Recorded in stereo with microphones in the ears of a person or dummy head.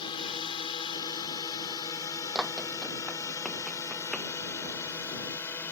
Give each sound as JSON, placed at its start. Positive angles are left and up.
{"t": 0.0, "sound": "a drone", "side_deg": 25}
{"t": 2.4, "sound": "running footsteps", "side_deg": -5}